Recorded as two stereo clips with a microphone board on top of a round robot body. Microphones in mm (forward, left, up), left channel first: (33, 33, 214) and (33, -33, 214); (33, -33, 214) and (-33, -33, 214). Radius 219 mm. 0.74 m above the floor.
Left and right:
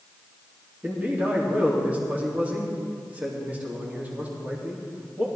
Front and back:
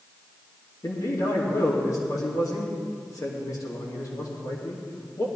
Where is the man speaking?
25° right, 2.5 m.